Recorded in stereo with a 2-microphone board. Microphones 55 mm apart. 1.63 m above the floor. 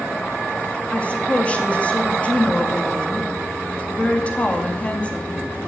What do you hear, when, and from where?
0.9 s a woman speaking: 25° left (ahead or behind), 2.5 m